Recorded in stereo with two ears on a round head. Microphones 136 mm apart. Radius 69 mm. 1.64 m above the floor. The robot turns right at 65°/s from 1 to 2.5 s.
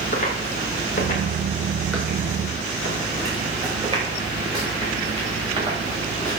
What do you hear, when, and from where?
0.1 s footsteps: 55° left (ahead or behind), 5 m; by 6.4 s 25° right (ahead or behind), 8.5 m